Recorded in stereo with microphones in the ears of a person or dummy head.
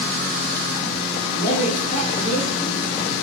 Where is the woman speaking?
65° left (ahead or behind), 4.5 m.